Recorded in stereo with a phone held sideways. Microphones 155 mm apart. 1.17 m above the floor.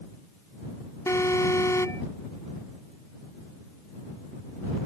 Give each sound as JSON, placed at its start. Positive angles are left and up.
{"t": 1.1, "sound": "an alarm", "side_deg": 15}